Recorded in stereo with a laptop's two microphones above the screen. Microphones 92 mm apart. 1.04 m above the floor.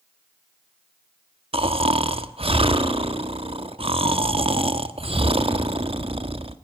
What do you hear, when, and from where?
1.5 s snoring: 85° right, 1.4 m